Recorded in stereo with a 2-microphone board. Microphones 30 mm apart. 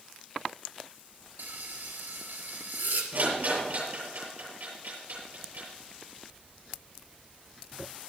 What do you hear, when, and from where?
1.4 s frying: 85° right, 3 m
3.1 s a rattle: 70° right (ahead or behind), 7.5 m